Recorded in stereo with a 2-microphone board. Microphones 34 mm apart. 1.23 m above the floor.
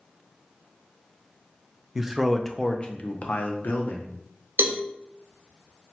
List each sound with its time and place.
1.9 s a man speaking: 15° right (ahead or behind), 0.6 m; by 4.1 s 70° left (ahead or behind), 1.0 m
4.6 s a cowbell: 80° right, 0.6 m